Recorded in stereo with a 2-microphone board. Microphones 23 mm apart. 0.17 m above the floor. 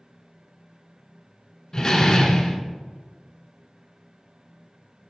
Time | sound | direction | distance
1.7 | a door slam | 25° left (ahead or behind) | 1.2 m